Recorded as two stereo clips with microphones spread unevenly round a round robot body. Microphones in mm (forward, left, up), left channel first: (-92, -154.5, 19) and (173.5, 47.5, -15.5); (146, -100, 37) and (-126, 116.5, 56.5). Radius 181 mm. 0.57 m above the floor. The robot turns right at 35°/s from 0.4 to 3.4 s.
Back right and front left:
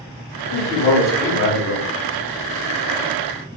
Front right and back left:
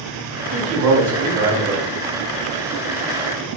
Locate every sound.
0.5 s a man speaking: 150° left, 1.2 m; by 1.8 s 165° right, 1.2 m